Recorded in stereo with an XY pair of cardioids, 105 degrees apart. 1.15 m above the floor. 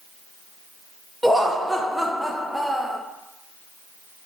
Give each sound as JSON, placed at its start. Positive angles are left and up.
{"t": 1.2, "sound": "laughter", "azimuth_deg": -5, "distance_m": 0.6}